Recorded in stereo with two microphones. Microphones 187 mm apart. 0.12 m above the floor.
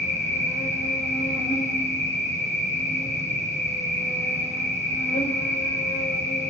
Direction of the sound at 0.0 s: 40° left (ahead or behind).